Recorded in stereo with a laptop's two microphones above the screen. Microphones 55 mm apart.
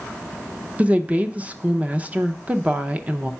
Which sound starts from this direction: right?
A woman speaking, at 0.8 s.